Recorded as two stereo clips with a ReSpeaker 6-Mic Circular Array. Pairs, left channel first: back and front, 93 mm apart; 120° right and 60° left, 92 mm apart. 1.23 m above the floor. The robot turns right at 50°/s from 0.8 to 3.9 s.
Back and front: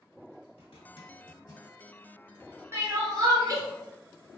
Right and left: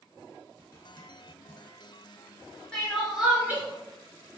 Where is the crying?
40° right, 0.7 m; by 3.6 s 5° left, 0.7 m.